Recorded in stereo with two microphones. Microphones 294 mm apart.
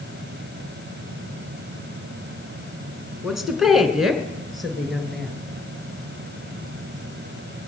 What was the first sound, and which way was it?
A woman speaking, centre (ahead or behind).